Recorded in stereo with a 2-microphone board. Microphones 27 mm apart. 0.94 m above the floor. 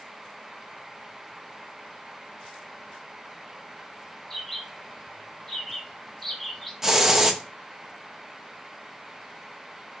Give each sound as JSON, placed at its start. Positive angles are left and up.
{"t": 4.3, "sound": "a bird", "side_deg": 10, "distance_m": 3.5}
{"t": 6.8, "sound": "a hiss", "side_deg": -15, "distance_m": 1.1}